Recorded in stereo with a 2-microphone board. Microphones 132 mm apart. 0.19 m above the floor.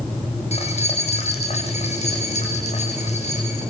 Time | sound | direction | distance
0.5 | keys jangling | 50° left (ahead or behind) | 7 m